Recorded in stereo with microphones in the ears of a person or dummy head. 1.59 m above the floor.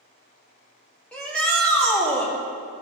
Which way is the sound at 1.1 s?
10° left (ahead or behind).